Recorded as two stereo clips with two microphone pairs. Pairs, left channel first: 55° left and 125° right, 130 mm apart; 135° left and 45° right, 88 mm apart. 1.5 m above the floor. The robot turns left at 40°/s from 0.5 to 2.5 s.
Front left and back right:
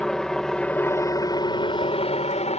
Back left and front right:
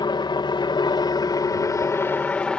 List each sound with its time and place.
0.0 s a helicopter: 140° left; by 2.6 s 60° left